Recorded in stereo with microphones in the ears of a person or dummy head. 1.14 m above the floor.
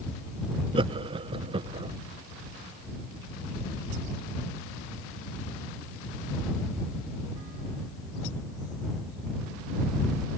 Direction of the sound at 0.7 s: 25° right (ahead or behind).